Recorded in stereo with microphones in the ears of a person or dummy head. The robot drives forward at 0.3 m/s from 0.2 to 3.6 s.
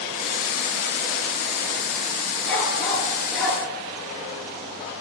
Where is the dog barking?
Centre (ahead or behind), 7.5 m.